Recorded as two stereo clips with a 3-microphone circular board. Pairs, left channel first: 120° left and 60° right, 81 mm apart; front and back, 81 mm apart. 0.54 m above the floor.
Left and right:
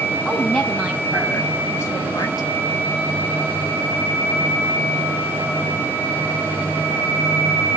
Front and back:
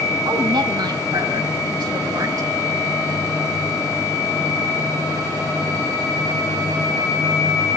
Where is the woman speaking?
165° right, 3.5 m; by 2.5 s 140° left, 1.8 m.